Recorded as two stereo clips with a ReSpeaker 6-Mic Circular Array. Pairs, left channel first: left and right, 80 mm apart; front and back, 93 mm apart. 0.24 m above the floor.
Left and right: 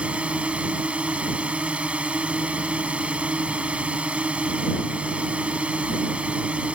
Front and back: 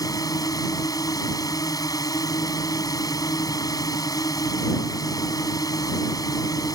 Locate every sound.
0.0 s a drone: 20° right